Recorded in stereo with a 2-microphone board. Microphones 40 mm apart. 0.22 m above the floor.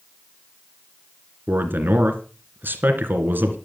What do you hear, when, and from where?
1.5 s a man speaking: 55° right (ahead or behind), 2.5 m